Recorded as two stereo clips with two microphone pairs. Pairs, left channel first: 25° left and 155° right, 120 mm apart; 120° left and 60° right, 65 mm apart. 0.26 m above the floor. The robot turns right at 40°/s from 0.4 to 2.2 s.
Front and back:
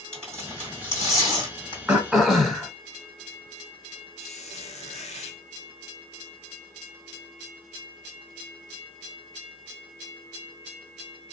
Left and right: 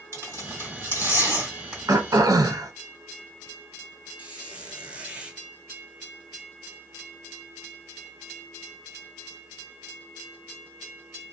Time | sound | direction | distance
0.1 | tearing paper | 50° right | 2 m
1.9 | throat clearing | 80° right | 0.6 m
4.2 | a squeak | 10° left | 0.8 m